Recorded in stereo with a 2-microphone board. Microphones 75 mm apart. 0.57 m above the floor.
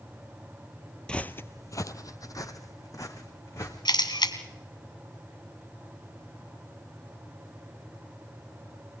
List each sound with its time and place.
1.1 s footsteps: 10° left (ahead or behind), 0.7 m; by 3.8 s 45° left (ahead or behind), 2.5 m
3.9 s a camera shutter: 80° left, 1.7 m